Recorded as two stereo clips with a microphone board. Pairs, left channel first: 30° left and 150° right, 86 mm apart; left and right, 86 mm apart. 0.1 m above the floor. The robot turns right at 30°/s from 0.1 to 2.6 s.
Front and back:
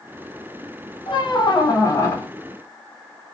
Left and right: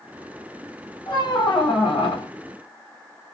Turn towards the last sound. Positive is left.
turn(degrees=105)